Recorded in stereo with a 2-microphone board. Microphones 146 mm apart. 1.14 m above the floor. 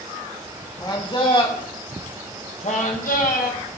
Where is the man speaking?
30° left (ahead or behind), 2.5 m; by 3.6 s 65° left (ahead or behind), 1.6 m.